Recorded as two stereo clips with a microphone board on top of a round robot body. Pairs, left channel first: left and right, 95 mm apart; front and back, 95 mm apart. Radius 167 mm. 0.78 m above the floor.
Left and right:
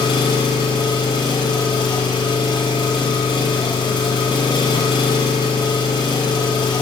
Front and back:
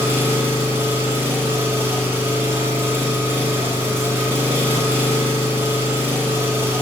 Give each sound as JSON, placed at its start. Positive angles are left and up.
{"t": 0.0, "sound": "an engine running", "azimuth_deg": 115, "distance_m": 1.0}